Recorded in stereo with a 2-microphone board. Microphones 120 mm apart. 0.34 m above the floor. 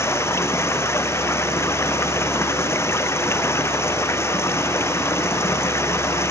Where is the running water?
20° left (ahead or behind).